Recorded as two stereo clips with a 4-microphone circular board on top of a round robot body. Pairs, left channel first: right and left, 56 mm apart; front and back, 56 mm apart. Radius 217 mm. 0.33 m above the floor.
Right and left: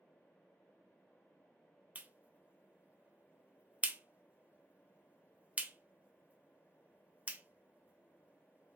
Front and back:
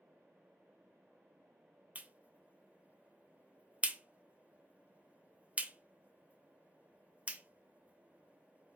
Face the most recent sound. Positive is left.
turn(degrees=135)